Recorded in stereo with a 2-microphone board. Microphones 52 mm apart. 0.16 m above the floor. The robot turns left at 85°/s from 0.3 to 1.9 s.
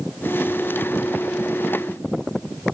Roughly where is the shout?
I don't hear a shout.